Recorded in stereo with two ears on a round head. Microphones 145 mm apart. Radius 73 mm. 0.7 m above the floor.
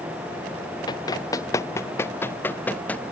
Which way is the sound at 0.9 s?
25° left (ahead or behind).